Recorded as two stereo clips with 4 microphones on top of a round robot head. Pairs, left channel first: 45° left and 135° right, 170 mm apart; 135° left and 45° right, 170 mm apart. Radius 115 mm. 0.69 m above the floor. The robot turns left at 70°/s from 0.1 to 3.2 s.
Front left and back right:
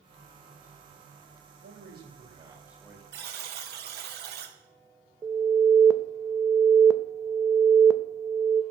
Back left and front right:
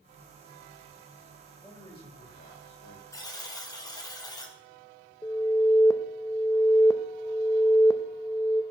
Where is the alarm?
Straight behind, 0.6 m.